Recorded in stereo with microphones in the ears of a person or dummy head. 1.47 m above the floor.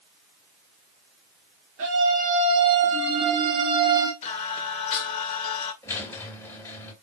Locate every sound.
1.8 s a scream: 70° right (ahead or behind), 2.5 m; by 4.1 s 20° right (ahead or behind), 1.8 m
4.2 s singing: 45° left (ahead or behind), 1.8 m
5.8 s a squeak: 20° left (ahead or behind), 2.5 m